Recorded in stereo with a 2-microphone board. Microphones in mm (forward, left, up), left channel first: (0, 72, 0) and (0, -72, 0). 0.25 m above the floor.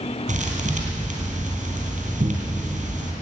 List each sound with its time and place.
0.3 s a thud: 55° right (ahead or behind), 3 m